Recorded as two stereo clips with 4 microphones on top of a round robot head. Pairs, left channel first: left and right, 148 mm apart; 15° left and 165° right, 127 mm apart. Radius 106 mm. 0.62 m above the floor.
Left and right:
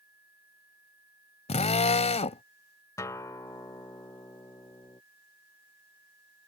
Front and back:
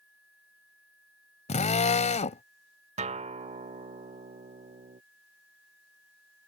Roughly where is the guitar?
Behind.